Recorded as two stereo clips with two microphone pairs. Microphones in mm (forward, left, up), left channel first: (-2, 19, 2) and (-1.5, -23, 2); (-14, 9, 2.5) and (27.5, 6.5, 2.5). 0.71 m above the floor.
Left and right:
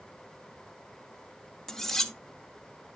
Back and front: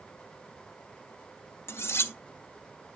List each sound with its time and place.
1.7 s cutlery clinking: 170° left, 0.6 m